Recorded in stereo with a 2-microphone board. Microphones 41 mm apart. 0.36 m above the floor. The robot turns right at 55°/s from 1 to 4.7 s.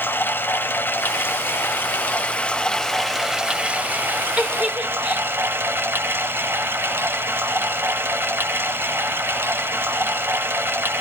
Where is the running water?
65° left, 0.8 m; by 11.0 s 90° right, 0.8 m.